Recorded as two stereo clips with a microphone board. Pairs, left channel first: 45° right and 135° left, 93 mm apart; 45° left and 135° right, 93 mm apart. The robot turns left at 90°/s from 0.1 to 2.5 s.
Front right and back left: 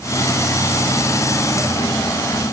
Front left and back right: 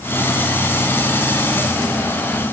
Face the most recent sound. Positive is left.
No sound to turn to.